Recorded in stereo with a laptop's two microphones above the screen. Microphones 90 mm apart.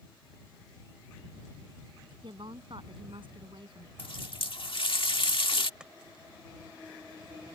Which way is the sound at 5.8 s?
10° right (ahead or behind).